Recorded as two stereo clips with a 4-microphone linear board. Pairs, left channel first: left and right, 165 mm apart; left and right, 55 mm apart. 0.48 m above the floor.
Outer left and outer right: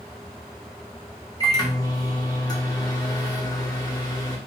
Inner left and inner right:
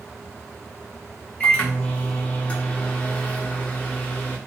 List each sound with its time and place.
1.4 s a microwave: 25° left (ahead or behind), 0.8 m